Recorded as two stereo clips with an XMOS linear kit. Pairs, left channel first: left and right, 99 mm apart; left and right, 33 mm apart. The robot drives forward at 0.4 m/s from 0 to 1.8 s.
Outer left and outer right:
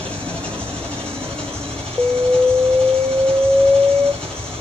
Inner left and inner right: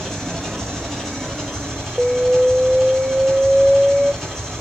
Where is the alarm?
10° right (ahead or behind), 0.5 m.